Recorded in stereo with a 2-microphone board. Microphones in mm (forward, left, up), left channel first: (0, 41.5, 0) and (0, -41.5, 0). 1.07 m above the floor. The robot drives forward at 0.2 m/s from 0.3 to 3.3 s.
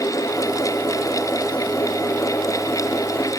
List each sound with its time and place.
Only background noise.